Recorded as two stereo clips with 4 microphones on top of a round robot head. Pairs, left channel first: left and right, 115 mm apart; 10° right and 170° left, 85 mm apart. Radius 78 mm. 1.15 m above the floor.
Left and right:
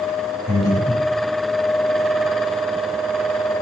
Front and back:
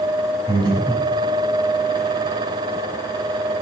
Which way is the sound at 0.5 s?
145° left.